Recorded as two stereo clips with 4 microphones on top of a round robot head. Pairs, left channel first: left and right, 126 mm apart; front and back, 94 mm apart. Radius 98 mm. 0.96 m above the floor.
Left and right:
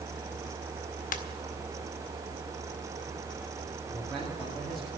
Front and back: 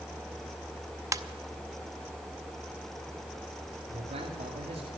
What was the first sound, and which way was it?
A ringtone, 125° left.